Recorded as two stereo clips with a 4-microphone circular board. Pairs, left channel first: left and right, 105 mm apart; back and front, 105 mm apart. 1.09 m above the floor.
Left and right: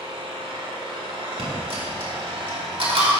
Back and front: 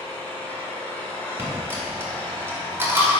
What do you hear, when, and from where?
0.0 s an engine running: 110° right, 1.3 m
1.4 s a dropped coin: 65° right, 1.8 m